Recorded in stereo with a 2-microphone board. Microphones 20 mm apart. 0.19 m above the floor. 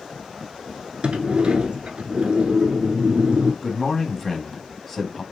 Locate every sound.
1.0 s a sliding door: 60° right (ahead or behind), 0.7 m
3.6 s a man speaking: 20° left (ahead or behind), 1.0 m